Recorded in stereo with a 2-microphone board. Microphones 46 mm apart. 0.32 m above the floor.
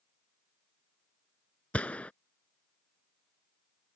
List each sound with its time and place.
1.7 s a gunshot: 30° left (ahead or behind)